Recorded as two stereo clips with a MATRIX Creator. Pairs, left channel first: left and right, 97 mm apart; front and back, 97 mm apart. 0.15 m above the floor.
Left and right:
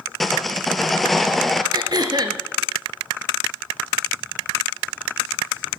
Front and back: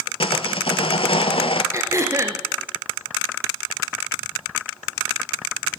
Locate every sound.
0.2 s sawing: straight ahead, 0.8 m
1.7 s throat clearing: 130° right, 1.5 m